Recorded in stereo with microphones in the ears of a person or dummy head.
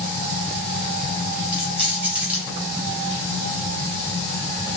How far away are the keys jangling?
About 3.5 m.